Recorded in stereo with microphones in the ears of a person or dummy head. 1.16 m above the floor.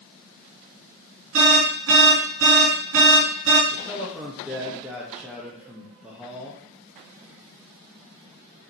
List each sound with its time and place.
1.3 s an alarm: 70° right (ahead or behind), 2.5 m
3.7 s a man speaking: 5° right (ahead or behind), 1.3 m